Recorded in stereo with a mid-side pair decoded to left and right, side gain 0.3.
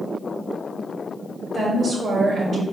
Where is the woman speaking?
65° right, 1.6 m.